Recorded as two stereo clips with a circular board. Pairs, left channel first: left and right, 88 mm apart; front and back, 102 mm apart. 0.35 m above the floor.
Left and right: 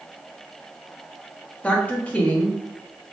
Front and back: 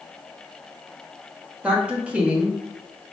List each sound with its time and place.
1.6 s a woman speaking: 125° left, 0.9 m